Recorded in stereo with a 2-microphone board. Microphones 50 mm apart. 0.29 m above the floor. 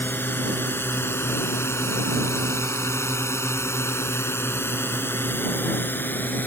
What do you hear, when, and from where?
0.0 s a drone: 45° left (ahead or behind); by 6.5 s 40° left (ahead or behind)